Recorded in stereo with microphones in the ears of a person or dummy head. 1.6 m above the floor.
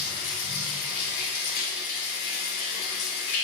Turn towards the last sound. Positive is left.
turn(degrees=55)  # may be behind; listen again after turning